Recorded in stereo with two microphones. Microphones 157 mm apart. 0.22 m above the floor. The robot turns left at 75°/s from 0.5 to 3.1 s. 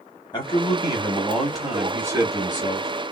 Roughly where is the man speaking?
Left.